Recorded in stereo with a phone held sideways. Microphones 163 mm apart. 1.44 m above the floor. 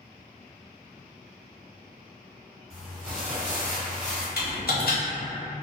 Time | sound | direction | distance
2.7 | crumpling | 5° right (ahead or behind) | 1.6 m
4.4 | typing on a keyboard | 80° left | 0.8 m